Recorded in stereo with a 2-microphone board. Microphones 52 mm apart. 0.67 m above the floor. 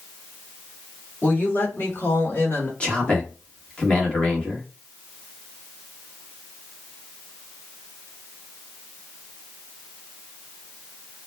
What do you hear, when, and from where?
1.2 s a woman speaking: 35° left (ahead or behind), 1.3 m; by 2.7 s 50° left (ahead or behind), 1.5 m
2.8 s a man speaking: 20° left (ahead or behind), 1.1 m